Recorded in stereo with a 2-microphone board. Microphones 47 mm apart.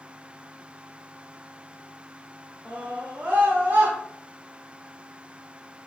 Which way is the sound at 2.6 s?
35° right (ahead or behind).